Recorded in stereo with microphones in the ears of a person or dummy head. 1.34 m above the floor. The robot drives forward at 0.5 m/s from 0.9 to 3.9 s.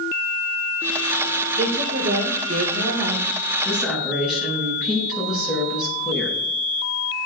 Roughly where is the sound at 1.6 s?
Right.